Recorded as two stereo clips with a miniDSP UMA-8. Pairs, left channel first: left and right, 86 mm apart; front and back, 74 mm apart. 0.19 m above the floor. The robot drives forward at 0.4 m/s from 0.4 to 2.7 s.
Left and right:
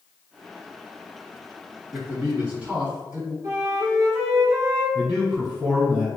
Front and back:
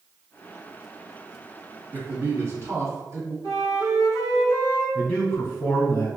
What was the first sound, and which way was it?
A man speaking, 150° right.